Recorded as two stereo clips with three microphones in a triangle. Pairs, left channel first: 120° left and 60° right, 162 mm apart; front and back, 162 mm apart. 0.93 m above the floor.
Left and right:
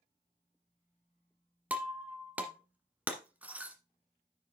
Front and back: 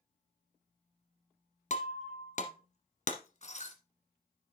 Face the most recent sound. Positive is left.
turn(degrees=20)